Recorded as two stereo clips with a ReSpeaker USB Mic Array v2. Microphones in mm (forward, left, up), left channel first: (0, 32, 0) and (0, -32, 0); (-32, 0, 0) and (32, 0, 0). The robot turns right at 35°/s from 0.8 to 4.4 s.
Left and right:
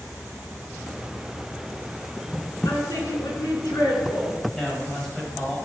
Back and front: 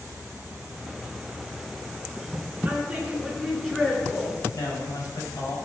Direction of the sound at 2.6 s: 70° left.